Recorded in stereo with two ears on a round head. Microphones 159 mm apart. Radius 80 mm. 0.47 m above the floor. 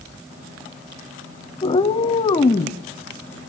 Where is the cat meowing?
25° left (ahead or behind), 1.4 m.